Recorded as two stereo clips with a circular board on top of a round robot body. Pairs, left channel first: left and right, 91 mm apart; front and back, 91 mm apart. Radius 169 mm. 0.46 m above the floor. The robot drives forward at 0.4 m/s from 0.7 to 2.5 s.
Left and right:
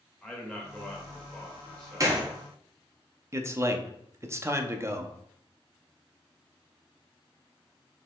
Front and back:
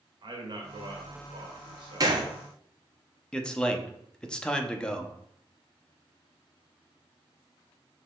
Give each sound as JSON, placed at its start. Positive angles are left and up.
{"t": 0.2, "sound": "a man speaking", "azimuth_deg": 170, "distance_m": 1.6}
{"t": 2.0, "sound": "a gunshot", "azimuth_deg": -140, "distance_m": 1.2}
{"t": 3.3, "sound": "a man speaking", "azimuth_deg": -75, "distance_m": 0.8}